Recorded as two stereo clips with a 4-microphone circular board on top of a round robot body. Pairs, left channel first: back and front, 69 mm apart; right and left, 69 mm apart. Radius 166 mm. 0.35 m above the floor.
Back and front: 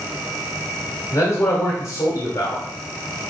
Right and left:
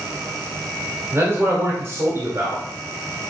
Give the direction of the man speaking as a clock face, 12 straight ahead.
7 o'clock.